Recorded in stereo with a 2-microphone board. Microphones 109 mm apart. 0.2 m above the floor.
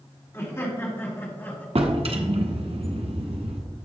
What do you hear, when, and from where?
0.3 s laughter: 25° left (ahead or behind), 1.9 m; by 1.6 s 15° left (ahead or behind), 1.8 m
1.8 s a drawer: 60° right (ahead or behind), 0.9 m